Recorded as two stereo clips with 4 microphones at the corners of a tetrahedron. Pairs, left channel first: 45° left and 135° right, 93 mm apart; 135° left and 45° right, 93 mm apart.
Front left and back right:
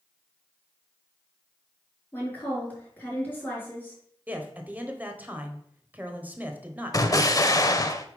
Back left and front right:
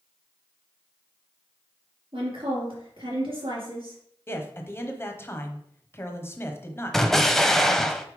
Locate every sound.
2.1 s a woman speaking: 25° right, 4 m
4.3 s a man speaking: 170° left, 1.1 m
6.9 s an explosion: 50° left, 0.6 m